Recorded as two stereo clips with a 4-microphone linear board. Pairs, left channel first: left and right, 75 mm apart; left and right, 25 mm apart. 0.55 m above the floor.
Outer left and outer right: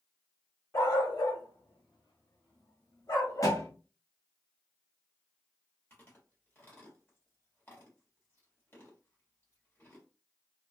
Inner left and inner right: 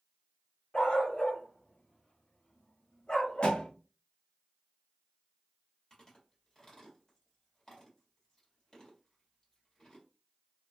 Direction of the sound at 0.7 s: 55° left (ahead or behind).